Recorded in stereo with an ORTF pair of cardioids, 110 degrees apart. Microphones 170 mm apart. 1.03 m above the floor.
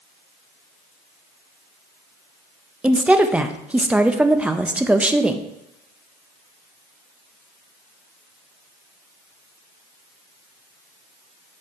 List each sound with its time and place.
2.8 s a woman speaking: 5° right, 0.5 m